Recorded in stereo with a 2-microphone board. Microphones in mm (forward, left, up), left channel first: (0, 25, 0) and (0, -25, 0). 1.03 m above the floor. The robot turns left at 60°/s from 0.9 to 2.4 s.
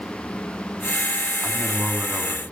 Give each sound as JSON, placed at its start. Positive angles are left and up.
{"t": 1.4, "sound": "a man speaking", "azimuth_deg": 0, "distance_m": 2.0}